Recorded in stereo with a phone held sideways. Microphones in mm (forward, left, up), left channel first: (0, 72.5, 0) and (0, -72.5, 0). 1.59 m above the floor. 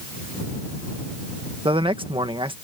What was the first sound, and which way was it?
A man speaking, 35° right (ahead or behind).